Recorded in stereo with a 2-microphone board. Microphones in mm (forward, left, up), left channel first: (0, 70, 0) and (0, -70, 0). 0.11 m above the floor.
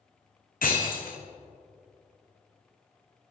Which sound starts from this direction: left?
Breaking glass, at 0.6 s.